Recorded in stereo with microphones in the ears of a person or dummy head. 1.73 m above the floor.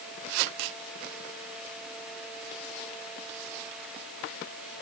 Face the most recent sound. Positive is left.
No sound to turn to.